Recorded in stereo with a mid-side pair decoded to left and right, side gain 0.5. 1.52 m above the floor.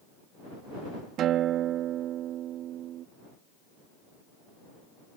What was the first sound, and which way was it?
A guitar, 70° right.